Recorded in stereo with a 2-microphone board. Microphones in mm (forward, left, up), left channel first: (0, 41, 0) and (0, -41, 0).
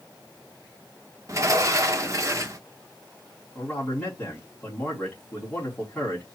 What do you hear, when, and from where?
1.3 s a sliding door: 40° right (ahead or behind), 1.0 m
3.5 s a man speaking: 20° left (ahead or behind), 4 m